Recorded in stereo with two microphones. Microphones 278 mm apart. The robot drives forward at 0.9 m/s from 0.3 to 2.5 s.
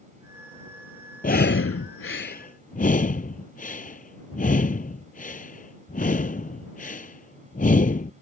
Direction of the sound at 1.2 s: 30° left (ahead or behind).